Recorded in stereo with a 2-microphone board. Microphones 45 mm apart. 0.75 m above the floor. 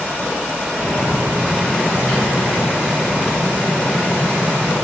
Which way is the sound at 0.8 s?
35° right (ahead or behind).